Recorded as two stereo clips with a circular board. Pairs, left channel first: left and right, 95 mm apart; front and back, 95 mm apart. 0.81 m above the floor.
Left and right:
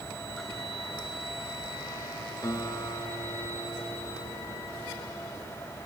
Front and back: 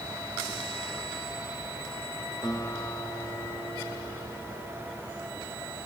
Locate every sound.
2.4 s a guitar: 45° left, 2.5 m